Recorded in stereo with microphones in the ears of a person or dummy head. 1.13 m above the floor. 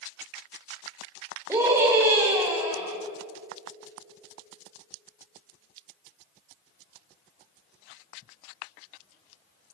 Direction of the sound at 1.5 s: 10° right (ahead or behind).